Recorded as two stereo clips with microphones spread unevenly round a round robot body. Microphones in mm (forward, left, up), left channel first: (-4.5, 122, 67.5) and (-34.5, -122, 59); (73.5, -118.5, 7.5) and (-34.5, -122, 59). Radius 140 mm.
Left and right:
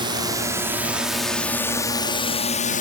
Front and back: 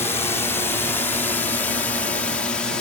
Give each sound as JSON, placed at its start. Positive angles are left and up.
{"t": 0.0, "sound": "a drone", "azimuth_deg": -30}